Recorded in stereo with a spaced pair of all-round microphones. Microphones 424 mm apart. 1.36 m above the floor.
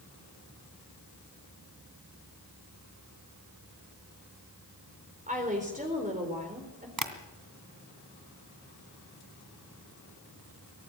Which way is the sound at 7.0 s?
50° right (ahead or behind).